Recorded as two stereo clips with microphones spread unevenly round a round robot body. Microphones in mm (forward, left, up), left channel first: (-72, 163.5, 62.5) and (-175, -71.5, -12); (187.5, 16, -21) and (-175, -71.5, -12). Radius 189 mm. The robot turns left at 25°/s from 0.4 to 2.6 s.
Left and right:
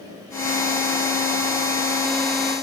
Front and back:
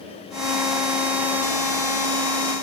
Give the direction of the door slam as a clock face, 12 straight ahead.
No door slam in this recording.